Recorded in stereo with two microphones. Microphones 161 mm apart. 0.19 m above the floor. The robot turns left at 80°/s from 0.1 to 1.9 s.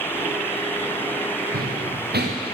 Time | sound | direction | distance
1.5 | running footsteps | 60° right (ahead or behind) | 1.7 m